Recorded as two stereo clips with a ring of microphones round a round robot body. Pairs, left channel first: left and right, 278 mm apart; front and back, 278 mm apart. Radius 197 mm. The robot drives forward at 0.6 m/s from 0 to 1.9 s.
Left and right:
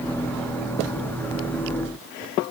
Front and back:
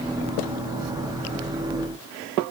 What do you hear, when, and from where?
Only background noise.